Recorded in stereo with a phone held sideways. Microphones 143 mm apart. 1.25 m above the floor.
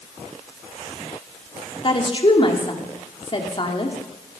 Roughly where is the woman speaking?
Left.